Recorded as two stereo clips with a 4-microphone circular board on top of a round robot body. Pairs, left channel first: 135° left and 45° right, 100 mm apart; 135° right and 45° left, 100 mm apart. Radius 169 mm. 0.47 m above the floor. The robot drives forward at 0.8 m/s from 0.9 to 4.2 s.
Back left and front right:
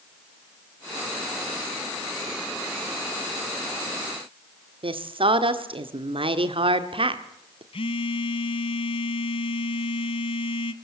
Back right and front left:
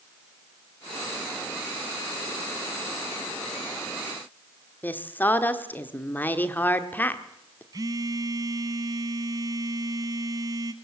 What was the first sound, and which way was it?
A woman speaking, 65° right.